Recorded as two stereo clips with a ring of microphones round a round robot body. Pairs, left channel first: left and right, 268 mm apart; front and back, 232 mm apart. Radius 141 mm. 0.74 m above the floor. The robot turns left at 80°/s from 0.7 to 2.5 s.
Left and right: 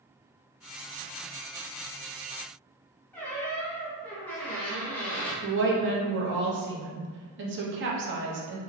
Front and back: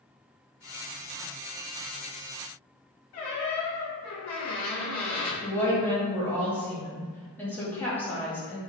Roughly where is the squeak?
Ahead.